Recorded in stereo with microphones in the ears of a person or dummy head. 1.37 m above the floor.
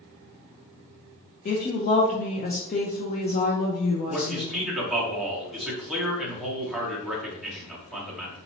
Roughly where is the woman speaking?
Left.